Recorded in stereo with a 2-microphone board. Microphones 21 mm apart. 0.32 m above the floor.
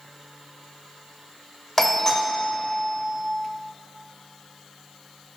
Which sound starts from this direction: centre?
A doorbell, at 1.8 s.